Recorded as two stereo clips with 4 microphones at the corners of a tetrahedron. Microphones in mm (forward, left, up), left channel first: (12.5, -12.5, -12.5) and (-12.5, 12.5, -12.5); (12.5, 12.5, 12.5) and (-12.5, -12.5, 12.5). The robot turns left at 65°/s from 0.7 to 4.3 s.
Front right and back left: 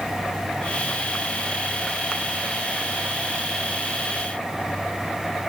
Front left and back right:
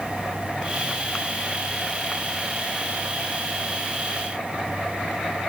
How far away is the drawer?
No drawer in this recording.